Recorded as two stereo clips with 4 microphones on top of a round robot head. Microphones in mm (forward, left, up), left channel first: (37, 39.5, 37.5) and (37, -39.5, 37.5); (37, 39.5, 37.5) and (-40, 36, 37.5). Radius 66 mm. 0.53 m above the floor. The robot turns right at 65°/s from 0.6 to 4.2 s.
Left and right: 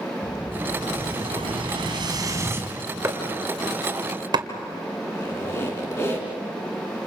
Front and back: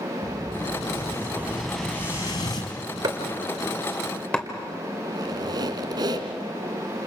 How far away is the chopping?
About 2.5 m.